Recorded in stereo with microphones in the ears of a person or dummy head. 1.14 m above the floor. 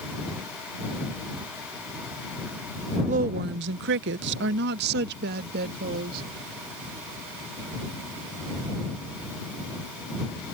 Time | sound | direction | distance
3.1 | a woman speaking | 35° right (ahead or behind) | ?